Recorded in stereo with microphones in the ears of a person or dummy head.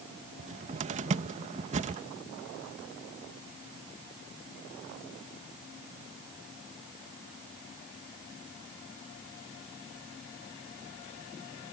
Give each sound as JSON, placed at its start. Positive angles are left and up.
{"t": 0.4, "sound": "a cupboard door", "side_deg": -35}